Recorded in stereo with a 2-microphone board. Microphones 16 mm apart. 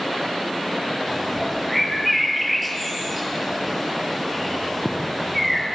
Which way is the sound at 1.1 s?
Centre (ahead or behind).